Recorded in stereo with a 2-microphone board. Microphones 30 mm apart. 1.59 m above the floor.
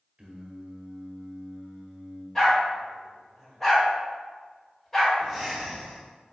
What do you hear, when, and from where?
0.2 s singing: 40° right (ahead or behind), 0.8 m
2.4 s a dog barking: 10° left (ahead or behind), 1.6 m
5.2 s breathing: centre (ahead or behind), 1.1 m